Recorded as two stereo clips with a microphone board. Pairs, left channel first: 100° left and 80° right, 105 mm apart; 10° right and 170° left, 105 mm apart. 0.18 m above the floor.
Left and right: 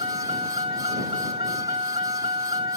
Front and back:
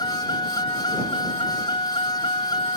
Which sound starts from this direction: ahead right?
A vehicle, at 0.0 s.